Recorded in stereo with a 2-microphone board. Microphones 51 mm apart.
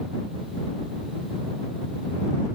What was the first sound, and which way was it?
Only background noise.